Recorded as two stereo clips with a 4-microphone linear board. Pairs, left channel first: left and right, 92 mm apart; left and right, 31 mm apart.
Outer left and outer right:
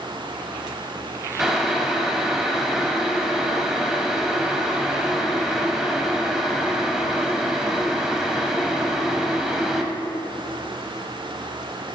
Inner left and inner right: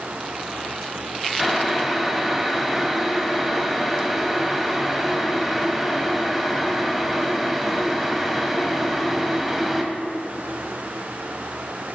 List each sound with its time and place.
1.4 s boiling: 5° right (ahead or behind), 1.0 m